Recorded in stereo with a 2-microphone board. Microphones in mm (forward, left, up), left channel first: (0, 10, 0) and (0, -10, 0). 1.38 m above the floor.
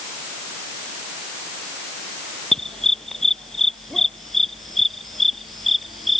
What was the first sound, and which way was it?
A dog barking, 25° left (ahead or behind).